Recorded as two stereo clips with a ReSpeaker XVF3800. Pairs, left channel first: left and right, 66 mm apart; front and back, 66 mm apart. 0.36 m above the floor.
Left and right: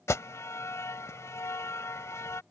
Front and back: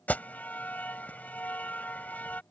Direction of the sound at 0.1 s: 60° left.